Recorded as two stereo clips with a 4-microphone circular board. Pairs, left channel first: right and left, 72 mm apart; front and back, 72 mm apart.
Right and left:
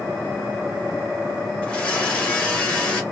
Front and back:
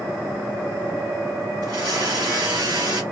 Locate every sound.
1.6 s a blender: 165° right, 1.2 m